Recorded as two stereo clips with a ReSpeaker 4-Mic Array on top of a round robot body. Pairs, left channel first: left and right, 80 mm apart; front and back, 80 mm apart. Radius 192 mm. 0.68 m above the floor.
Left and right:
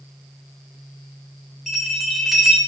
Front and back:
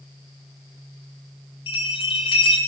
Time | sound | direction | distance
1.7 | a bell | straight ahead | 0.9 m